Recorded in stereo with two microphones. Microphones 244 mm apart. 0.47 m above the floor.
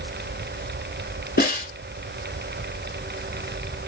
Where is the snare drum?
40° left (ahead or behind), 1.1 m.